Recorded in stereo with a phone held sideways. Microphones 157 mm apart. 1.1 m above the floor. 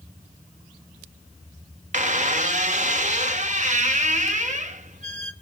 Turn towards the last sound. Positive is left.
turn(degrees=-50)  # may be behind; listen again after turning